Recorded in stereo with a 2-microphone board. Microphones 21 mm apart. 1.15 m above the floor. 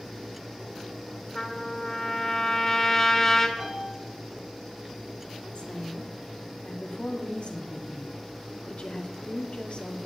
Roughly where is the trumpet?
Left.